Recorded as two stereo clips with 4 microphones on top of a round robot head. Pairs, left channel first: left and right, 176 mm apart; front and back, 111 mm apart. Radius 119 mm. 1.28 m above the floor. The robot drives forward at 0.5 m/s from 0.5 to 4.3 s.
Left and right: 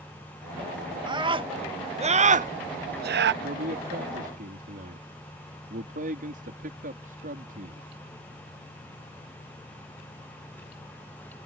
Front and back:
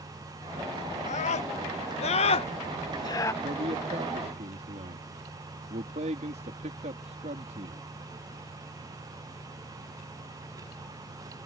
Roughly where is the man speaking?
Behind right.